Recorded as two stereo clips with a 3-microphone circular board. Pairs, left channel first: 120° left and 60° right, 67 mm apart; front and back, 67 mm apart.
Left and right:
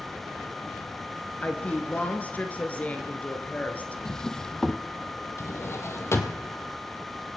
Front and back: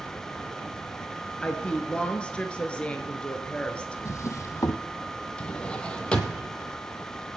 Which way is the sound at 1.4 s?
65° left.